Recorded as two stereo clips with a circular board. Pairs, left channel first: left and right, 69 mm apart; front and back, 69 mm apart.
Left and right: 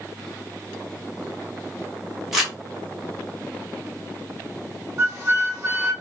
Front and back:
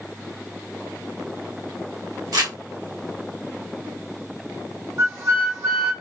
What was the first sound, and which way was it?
Crumpling, 175° right.